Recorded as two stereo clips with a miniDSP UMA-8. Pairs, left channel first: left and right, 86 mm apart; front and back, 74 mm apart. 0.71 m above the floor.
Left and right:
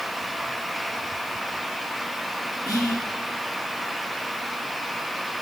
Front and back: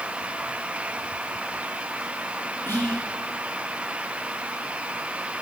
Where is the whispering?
50° left, 1.3 m.